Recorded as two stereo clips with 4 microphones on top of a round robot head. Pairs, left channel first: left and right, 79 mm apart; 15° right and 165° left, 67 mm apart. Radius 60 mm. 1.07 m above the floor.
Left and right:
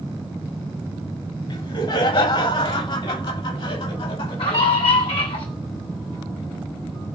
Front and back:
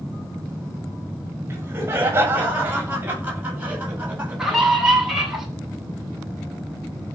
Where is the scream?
85° left, 9 m.